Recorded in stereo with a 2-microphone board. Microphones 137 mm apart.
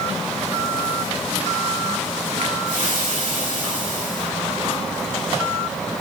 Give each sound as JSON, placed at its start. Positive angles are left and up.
{"t": 2.6, "sound": "frying", "side_deg": -75, "distance_m": 3.0}